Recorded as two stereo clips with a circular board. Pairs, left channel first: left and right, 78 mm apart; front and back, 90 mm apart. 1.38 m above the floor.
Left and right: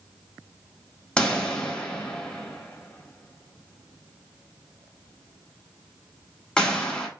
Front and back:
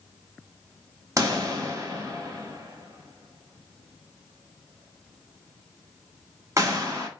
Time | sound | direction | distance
1.2 | a pop | 160° left | 1.0 m